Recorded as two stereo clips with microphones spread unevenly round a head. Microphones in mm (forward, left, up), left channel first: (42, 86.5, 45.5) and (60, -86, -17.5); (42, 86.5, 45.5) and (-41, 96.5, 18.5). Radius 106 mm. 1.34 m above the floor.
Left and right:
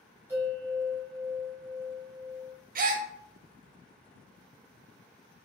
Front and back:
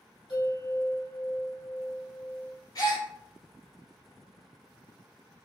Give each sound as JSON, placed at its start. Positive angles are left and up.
{"t": 0.3, "sound": "a bell", "azimuth_deg": 0, "distance_m": 2.0}
{"t": 2.8, "sound": "a gasp", "azimuth_deg": -35, "distance_m": 0.6}